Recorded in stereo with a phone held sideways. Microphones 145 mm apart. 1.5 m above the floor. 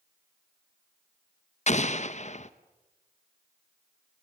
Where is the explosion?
55° left (ahead or behind), 0.9 m.